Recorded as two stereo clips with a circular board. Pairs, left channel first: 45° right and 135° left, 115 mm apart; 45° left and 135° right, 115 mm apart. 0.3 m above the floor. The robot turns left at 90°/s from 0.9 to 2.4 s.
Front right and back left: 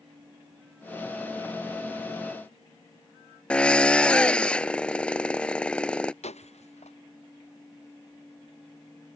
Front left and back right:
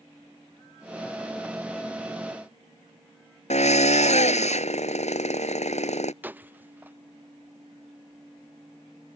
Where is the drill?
35° left.